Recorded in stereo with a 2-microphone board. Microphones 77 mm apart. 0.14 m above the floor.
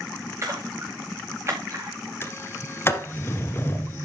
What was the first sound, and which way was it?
A splash, 35° right (ahead or behind).